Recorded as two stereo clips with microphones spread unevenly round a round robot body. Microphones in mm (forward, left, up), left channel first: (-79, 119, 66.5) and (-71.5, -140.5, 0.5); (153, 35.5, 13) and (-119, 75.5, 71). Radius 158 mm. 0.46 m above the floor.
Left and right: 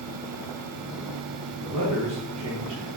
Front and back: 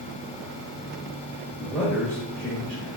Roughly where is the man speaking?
Right.